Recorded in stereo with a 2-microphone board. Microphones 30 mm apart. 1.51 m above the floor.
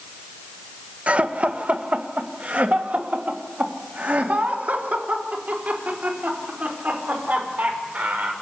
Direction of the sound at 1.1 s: 45° right (ahead or behind).